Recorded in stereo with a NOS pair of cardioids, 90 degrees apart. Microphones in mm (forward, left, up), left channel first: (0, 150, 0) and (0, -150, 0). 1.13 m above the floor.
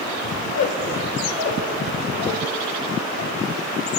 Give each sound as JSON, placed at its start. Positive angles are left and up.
{"t": 0.4, "sound": "a squeak", "azimuth_deg": 70, "distance_m": 1.0}